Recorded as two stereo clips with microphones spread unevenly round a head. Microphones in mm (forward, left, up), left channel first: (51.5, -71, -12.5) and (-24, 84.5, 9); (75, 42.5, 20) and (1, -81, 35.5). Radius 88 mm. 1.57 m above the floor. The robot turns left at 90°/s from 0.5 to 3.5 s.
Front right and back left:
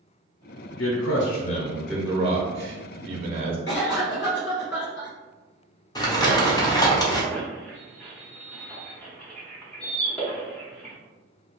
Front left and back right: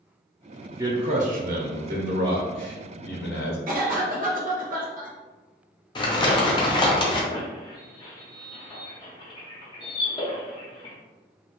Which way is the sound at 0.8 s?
55° right.